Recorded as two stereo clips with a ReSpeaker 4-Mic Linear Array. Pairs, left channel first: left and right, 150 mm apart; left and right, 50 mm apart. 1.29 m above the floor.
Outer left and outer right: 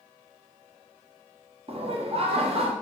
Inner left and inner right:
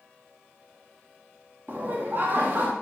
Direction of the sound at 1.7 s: 45° right (ahead or behind).